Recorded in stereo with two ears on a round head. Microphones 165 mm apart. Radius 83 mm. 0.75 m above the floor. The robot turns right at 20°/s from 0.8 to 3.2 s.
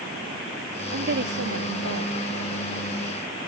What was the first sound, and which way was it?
A woman speaking, 50° right (ahead or behind).